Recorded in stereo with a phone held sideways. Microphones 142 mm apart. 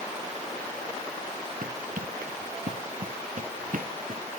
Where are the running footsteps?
75° right (ahead or behind).